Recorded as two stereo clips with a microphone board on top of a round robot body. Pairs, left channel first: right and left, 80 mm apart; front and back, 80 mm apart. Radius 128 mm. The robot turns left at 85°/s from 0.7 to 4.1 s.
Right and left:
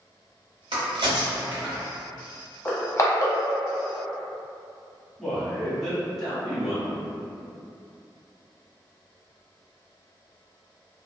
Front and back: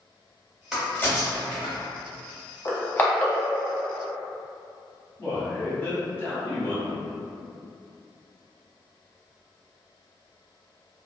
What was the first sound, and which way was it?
A crack, 95° left.